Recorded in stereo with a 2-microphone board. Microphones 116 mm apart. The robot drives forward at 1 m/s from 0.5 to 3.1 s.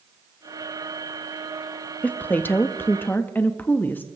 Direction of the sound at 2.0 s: 15° left (ahead or behind).